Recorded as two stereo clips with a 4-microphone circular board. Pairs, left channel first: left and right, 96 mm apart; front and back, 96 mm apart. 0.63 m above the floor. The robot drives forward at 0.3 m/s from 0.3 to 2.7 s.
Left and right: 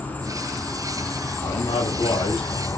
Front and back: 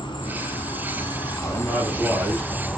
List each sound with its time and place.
0.0 s an insect: 20° left, 0.9 m; by 2.8 s 90° left, 0.5 m
1.4 s a man speaking: 100° left, 1.5 m; by 2.7 s 115° left, 1.6 m